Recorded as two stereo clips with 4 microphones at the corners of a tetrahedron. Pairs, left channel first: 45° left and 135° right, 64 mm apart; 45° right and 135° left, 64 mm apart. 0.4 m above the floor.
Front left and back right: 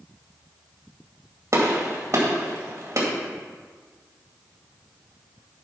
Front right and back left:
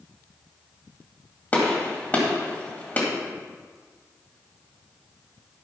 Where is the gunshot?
105° right, 2 m.